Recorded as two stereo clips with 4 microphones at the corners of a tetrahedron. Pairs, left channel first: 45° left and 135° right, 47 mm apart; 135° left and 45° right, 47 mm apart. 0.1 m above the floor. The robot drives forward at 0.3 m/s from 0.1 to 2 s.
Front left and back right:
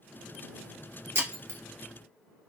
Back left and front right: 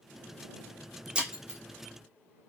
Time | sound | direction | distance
1.1 | breaking glass | 115° right | 1.0 m